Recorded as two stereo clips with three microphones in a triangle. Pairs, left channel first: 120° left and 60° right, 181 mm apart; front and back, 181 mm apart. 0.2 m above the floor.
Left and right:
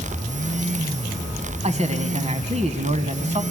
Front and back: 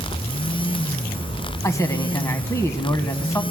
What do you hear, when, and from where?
1.6 s a man speaking: 65° right, 1.2 m